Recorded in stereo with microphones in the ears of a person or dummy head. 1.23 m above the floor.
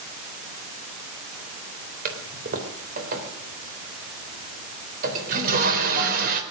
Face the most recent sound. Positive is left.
turn(degrees=-50)  # may be behind; listen again after turning